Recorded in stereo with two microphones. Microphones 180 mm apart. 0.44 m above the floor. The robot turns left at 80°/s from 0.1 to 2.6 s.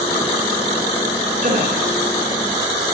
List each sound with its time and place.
1.4 s a gasp: 45° right (ahead or behind), 5 m; by 1.8 s 70° right (ahead or behind), 5 m